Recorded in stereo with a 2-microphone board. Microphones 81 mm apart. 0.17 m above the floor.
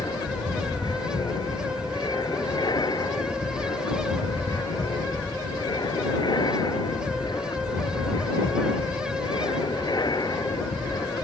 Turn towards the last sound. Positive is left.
turn(degrees=60)  # may be behind; listen again after turning